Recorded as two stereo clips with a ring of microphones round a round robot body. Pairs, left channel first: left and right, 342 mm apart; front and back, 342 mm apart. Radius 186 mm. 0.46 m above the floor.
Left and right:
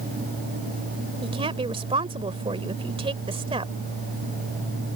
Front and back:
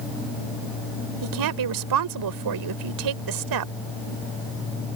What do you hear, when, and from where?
1.2 s a woman speaking: 165° right